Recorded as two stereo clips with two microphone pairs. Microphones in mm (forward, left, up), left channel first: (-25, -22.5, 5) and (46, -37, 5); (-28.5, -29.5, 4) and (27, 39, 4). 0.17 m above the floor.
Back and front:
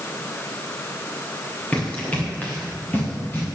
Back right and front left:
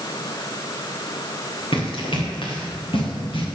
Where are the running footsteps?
120° right, 8 m; by 3.5 s 130° right, 7 m.